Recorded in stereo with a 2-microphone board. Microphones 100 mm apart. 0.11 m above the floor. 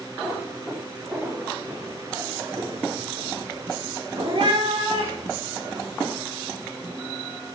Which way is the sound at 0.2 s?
10° right (ahead or behind).